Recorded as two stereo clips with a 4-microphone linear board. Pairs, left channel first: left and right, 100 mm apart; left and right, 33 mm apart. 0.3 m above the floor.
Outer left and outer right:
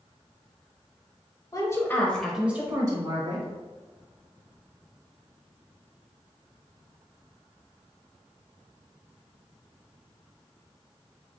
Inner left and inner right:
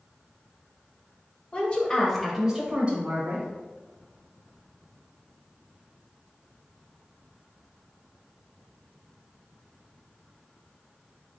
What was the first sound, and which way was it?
A woman speaking, 35° left (ahead or behind).